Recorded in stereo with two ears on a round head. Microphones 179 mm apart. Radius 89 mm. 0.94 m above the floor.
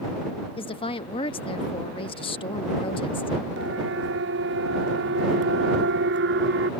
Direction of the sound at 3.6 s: 65° right (ahead or behind).